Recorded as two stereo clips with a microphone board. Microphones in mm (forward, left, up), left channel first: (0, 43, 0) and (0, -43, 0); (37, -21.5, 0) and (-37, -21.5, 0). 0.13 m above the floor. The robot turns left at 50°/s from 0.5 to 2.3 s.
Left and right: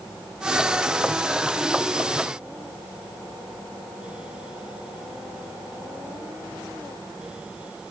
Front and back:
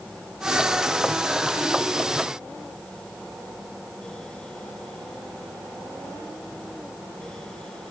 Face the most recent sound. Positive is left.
No sound to turn to.